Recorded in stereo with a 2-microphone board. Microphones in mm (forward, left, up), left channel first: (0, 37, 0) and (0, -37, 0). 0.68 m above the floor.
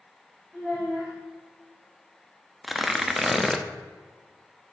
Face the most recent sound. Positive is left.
turn(degrees=0)  # may be behind; listen again after turning